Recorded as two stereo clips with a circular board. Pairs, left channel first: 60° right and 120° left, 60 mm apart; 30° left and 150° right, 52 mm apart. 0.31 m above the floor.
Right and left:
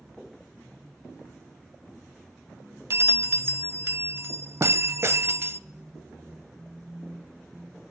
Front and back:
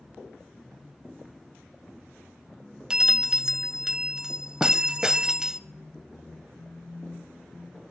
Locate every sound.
2.9 s a bell: 140° left, 0.7 m